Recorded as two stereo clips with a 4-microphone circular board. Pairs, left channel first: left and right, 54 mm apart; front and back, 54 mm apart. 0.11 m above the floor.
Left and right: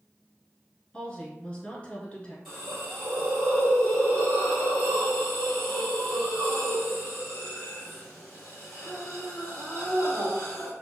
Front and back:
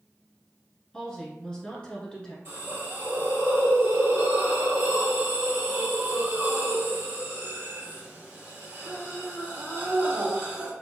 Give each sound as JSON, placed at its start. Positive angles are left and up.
{"t": 0.9, "sound": "a woman speaking", "azimuth_deg": 50, "distance_m": 1.1}
{"t": 2.5, "sound": "a hiss", "azimuth_deg": 175, "distance_m": 1.9}